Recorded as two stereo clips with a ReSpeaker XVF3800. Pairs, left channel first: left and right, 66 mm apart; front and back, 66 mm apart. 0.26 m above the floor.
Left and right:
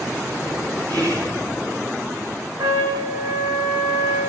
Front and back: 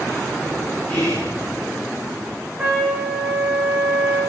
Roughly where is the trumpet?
Right.